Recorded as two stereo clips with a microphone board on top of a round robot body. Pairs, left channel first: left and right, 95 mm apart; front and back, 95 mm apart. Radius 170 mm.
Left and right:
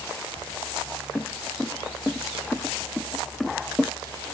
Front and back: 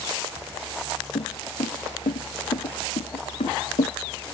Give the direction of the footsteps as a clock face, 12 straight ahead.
12 o'clock.